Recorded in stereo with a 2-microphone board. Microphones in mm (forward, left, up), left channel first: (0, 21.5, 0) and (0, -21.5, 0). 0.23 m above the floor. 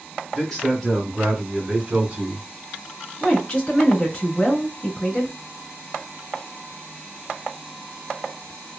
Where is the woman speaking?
20° left (ahead or behind), 1.3 m.